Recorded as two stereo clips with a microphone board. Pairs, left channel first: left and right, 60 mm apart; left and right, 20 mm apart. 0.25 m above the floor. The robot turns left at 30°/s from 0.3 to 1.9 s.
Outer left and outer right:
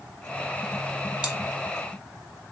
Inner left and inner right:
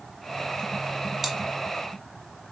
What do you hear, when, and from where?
1.2 s chewing: 20° right (ahead or behind), 0.6 m